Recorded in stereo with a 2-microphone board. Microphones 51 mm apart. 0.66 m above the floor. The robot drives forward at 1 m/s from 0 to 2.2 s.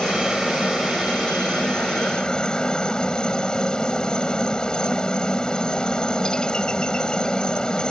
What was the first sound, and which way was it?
A helicopter, 15° left (ahead or behind).